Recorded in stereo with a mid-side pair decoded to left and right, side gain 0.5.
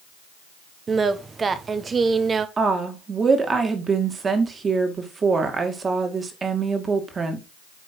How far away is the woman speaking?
About 2.5 m.